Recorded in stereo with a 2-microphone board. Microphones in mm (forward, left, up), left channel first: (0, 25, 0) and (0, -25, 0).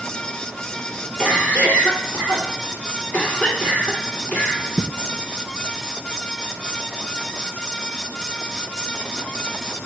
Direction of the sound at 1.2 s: 35° left (ahead or behind).